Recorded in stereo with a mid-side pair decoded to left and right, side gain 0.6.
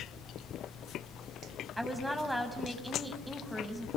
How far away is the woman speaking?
About 6.5 m.